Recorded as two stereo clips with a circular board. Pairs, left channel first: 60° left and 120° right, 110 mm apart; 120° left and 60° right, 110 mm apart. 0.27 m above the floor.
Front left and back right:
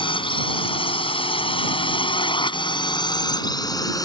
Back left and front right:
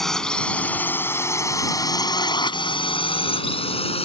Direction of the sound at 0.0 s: 35° left.